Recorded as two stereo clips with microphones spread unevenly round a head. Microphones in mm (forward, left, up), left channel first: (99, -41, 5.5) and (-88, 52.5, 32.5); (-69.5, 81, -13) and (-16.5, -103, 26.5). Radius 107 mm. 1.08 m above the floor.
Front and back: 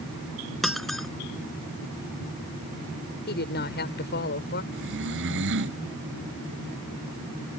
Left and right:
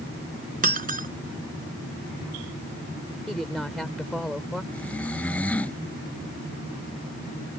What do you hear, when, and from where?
0.6 s breaking glass: 115° right
3.3 s a woman speaking: 15° left
4.7 s snoring: 170° right